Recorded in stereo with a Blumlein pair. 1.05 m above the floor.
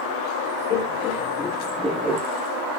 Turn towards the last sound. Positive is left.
turn(degrees=-25)